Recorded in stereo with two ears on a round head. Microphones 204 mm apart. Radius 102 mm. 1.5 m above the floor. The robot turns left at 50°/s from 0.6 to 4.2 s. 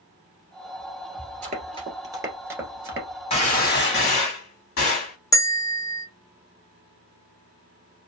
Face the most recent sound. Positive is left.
turn(degrees=15)  # may be behind; listen again after turning